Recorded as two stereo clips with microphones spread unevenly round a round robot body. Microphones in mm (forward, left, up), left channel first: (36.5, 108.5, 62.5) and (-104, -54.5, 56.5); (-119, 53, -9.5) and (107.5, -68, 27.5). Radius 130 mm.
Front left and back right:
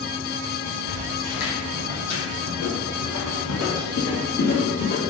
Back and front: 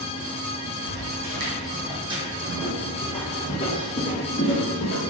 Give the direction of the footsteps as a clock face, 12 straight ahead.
12 o'clock.